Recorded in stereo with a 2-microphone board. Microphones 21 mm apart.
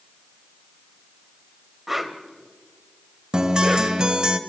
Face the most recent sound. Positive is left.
turn(degrees=-40)  # may be behind; listen again after turning